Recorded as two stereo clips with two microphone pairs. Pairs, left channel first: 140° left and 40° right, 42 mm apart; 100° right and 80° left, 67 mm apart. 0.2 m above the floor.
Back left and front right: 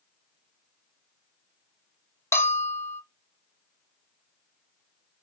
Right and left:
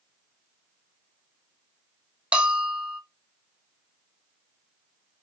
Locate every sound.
2.3 s a bell: 155° left, 1.1 m